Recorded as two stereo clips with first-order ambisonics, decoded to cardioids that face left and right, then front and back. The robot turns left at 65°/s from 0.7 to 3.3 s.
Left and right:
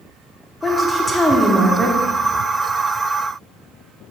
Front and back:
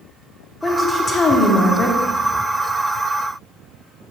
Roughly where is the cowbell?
No cowbell in this recording.